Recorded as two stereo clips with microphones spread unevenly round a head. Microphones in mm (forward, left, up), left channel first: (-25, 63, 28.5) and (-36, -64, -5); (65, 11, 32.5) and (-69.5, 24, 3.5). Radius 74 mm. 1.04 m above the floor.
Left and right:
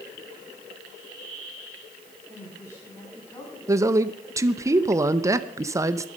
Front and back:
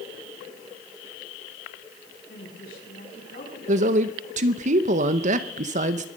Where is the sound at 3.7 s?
155° right, 0.7 m.